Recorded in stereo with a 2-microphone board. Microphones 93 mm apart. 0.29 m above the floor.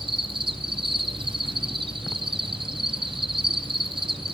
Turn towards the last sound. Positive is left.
turn(degrees=-65)  # may be behind; listen again after turning